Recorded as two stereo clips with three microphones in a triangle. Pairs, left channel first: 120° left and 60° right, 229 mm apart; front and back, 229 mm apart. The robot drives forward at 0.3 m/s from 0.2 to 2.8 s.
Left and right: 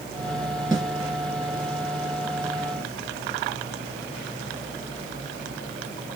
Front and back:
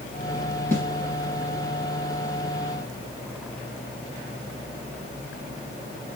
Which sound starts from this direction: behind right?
A snare drum, at 0.7 s.